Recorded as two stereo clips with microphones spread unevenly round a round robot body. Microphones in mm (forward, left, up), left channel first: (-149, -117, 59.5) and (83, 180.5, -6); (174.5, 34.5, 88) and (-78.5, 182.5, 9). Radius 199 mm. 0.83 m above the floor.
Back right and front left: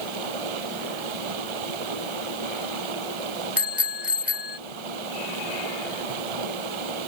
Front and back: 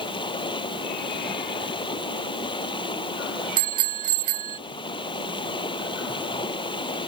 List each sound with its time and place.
0.0 s running water: 45° left
3.6 s a bicycle bell: 140° left